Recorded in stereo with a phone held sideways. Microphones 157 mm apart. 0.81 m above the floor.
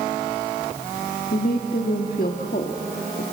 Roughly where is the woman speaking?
Left.